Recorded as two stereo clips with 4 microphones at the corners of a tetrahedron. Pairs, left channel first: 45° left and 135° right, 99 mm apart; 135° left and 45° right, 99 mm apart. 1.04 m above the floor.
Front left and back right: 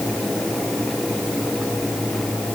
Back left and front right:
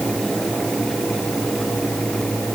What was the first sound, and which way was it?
Only background noise.